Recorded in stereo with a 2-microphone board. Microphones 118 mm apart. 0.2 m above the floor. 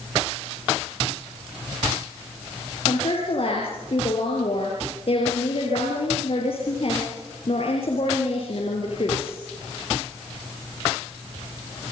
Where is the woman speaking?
55° left (ahead or behind), 5 m.